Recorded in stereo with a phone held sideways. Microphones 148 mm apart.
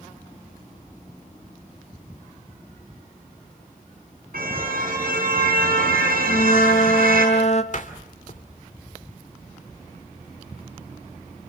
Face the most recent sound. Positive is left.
turn(degrees=55)  # may be behind; listen again after turning